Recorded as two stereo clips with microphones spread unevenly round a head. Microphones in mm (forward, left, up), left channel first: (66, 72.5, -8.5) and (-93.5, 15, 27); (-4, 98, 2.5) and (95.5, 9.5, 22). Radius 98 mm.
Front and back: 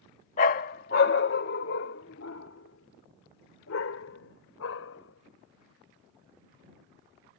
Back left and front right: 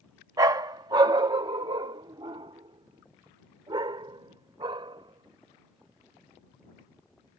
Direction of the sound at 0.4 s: 20° right.